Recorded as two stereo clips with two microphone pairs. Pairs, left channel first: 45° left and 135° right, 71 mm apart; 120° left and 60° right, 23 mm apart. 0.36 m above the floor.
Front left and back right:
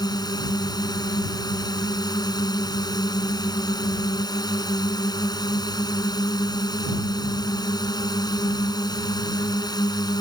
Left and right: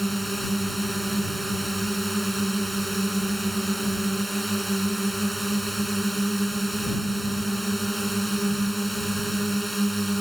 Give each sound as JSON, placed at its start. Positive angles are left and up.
{"t": 0.0, "sound": "a drone", "azimuth_deg": 35}